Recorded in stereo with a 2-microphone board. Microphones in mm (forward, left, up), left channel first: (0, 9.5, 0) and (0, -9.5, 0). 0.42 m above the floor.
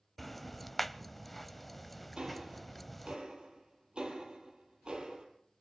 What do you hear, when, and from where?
0.2 s ticking: 5° left (ahead or behind), 0.6 m
2.2 s ticking: 55° right (ahead or behind), 5 m